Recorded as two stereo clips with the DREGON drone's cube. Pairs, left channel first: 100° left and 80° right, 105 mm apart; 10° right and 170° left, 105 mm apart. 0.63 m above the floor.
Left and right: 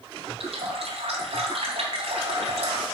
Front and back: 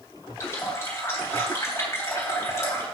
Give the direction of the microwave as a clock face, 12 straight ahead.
I don't hear a microwave.